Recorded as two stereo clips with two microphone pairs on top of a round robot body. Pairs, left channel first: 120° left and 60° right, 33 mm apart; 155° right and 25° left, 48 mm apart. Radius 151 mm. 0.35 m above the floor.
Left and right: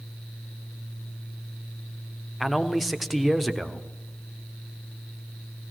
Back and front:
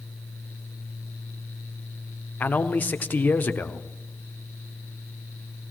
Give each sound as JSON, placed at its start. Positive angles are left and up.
{"t": 2.4, "sound": "a man speaking", "azimuth_deg": -160, "distance_m": 1.4}